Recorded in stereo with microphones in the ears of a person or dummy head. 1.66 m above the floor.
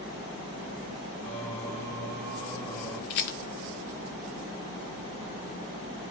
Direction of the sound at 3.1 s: 50° left (ahead or behind).